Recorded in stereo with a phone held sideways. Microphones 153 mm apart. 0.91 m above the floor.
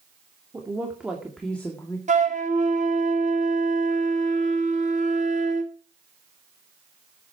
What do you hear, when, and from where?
0.5 s a woman speaking: 20° right (ahead or behind), 2.5 m; by 2.0 s 20° left (ahead or behind), 1.9 m
2.1 s a flute: 50° right (ahead or behind), 1.7 m